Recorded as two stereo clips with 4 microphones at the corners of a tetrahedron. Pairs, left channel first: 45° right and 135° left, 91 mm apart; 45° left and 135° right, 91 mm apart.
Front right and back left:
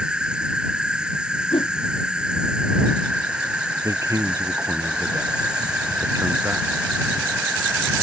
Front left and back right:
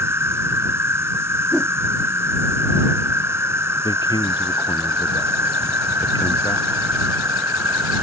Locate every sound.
0.0 s an insect: 155° right
1.5 s a whoosh: 55° right
3.8 s a man speaking: 80° left